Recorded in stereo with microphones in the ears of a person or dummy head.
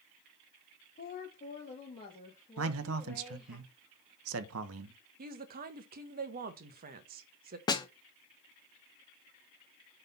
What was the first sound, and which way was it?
A woman speaking, 40° left (ahead or behind).